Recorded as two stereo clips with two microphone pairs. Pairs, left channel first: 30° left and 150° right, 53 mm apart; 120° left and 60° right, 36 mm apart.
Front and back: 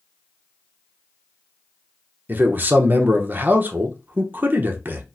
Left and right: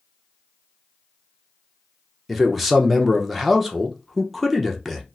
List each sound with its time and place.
2.3 s a man speaking: 140° right, 0.7 m